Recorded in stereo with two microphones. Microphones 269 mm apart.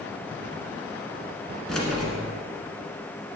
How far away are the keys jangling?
About 1.4 m.